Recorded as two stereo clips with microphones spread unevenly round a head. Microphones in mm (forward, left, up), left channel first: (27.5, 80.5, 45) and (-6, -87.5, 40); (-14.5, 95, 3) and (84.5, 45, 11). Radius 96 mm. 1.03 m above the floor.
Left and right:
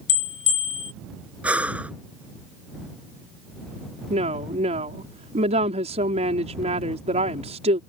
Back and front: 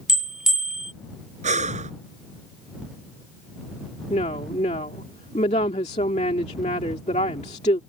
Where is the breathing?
20° right.